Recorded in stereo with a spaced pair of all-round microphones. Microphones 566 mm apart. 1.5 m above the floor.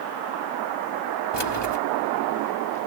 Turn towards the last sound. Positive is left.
turn(degrees=45)  # may be behind; listen again after turning